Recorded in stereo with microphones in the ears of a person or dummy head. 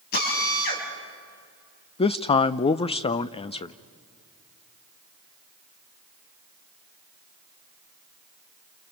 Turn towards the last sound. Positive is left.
turn(degrees=30)  # may be behind; listen again after turning